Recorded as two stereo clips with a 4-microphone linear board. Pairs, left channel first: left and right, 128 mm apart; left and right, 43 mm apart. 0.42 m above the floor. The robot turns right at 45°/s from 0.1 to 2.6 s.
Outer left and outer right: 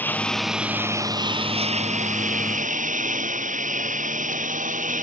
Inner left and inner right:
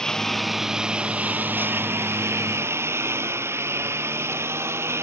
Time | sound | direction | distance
0.0 | a lawn mower | 15° left (ahead or behind) | ?